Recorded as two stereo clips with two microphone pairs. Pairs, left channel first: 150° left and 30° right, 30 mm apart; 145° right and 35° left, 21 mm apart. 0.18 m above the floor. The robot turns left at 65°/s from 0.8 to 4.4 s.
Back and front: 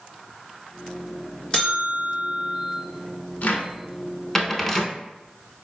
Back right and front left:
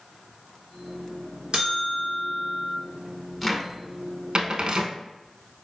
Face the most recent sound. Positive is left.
turn(degrees=65)